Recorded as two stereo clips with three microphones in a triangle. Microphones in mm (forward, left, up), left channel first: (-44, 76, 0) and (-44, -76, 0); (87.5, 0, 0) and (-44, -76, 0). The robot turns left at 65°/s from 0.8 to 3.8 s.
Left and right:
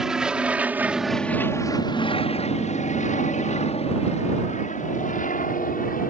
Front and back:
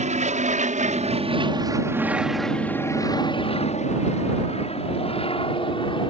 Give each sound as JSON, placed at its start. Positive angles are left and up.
{"t": 0.0, "sound": "an aircraft", "azimuth_deg": -175}